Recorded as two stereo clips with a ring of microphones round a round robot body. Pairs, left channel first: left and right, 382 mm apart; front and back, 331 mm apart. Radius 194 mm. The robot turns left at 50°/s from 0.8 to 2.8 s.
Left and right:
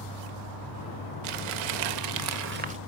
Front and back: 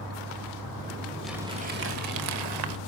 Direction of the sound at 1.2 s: 90° right.